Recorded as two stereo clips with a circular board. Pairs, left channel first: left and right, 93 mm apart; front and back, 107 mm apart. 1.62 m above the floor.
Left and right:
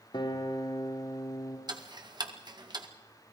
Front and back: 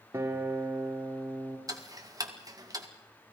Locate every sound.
0.1 s a guitar: 115° left, 3 m
1.7 s ticking: 125° right, 2.0 m